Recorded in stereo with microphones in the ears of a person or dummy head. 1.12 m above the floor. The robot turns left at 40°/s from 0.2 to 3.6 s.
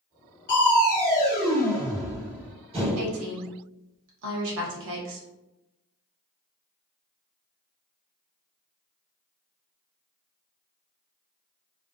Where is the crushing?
60° left, 1.4 m; by 3.2 s 50° right, 1.4 m.